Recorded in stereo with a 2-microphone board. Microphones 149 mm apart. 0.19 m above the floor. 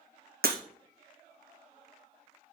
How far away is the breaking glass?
About 1.5 m.